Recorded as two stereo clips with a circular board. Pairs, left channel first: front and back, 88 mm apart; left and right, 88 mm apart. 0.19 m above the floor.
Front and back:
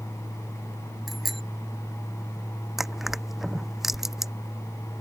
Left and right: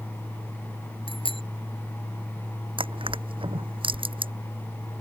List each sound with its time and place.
1.1 s a bicycle bell: 90° left
2.8 s crushing: 95° right